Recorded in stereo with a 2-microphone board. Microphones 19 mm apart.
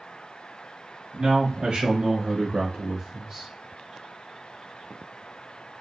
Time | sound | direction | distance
1.1 | a man speaking | 80° right | 1.3 m